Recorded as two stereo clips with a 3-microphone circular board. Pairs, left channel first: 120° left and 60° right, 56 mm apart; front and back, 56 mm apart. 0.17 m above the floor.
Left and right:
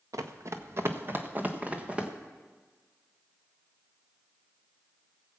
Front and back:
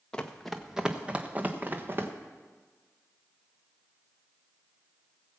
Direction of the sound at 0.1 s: 75° right.